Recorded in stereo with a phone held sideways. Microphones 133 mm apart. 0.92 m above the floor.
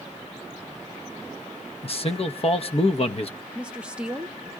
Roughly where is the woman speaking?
Centre.